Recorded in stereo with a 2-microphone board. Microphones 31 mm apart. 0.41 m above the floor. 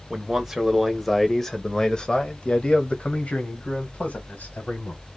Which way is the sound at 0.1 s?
15° right (ahead or behind).